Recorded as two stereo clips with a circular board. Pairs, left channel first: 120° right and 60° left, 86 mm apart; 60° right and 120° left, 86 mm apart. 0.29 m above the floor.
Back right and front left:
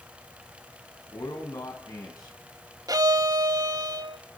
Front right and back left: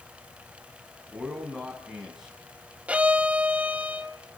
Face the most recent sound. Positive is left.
turn(degrees=50)